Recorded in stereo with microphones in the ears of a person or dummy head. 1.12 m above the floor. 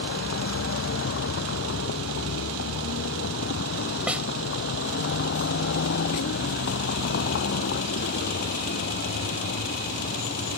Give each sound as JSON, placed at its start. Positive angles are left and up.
{"t": 0.0, "sound": "a vehicle", "side_deg": 65}
{"t": 4.1, "sound": "a snare drum", "side_deg": -10}